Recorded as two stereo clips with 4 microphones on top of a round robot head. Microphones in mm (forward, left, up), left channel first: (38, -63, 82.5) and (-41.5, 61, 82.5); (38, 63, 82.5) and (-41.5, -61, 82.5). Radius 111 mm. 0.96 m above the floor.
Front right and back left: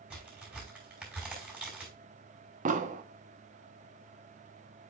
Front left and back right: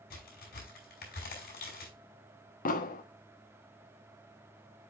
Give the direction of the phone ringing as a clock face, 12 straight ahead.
I don't hear a phone ringing.